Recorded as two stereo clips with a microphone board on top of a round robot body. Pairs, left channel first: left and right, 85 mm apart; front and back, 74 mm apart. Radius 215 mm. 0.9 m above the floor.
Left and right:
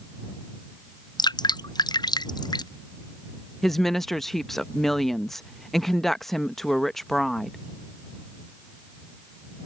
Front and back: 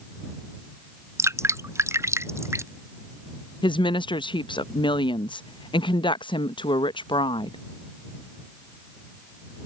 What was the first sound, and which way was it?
Dripping, 130° left.